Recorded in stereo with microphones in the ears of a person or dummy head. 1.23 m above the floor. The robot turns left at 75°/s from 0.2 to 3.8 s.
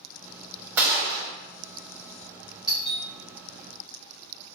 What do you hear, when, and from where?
0.8 s a gunshot: 10° right, 1.1 m; by 1.3 s 50° right, 1.1 m
2.7 s a doorbell: centre (ahead or behind), 1.4 m; by 3.0 s 25° left (ahead or behind), 1.4 m